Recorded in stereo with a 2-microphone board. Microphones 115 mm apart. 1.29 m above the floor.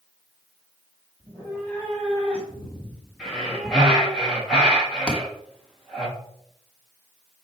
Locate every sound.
1.2 s a cat meowing: 15° left (ahead or behind), 2.5 m; by 4.2 s 10° right (ahead or behind), 1.2 m
3.2 s breathing: 5° left (ahead or behind), 2 m
5.1 s a thud: 5° left (ahead or behind), 1.1 m